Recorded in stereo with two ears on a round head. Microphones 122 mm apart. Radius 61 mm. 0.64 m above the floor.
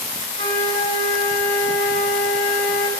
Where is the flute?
70° left (ahead or behind), 5.5 m.